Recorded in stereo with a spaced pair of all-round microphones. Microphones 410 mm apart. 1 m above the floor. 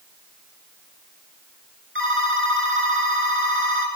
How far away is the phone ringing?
About 4 m.